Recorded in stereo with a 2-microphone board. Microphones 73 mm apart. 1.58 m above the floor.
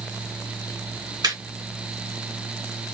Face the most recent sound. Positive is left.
turn(degrees=-70)  # may be behind; listen again after turning